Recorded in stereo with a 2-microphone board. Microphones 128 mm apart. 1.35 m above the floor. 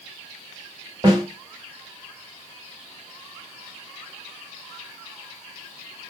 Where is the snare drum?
30° right (ahead or behind), 1.3 m.